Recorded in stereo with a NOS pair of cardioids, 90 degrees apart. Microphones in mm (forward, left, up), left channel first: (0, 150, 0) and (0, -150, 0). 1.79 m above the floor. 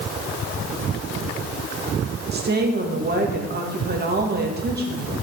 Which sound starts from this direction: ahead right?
A woman speaking, at 2.3 s.